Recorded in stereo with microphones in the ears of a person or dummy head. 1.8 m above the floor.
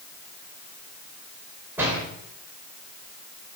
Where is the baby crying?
No baby crying in this recording.